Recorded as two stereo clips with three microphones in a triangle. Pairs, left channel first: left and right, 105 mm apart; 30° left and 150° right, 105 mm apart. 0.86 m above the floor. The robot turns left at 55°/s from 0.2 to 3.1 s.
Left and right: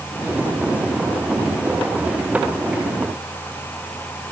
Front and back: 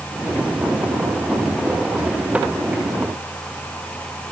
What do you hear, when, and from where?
Only background noise.